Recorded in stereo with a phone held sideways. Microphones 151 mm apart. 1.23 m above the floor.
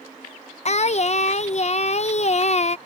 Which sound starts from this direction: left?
Singing, at 0.7 s.